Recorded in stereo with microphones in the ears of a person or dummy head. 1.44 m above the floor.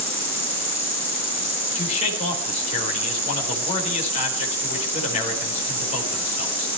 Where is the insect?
15° left (ahead or behind), 9.5 m.